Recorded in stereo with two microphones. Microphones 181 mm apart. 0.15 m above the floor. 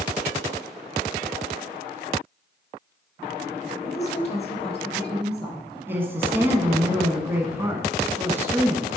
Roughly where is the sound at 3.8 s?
Left.